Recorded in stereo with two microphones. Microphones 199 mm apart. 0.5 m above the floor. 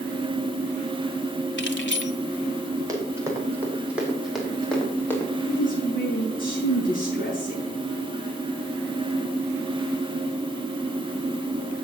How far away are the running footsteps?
About 6.5 m.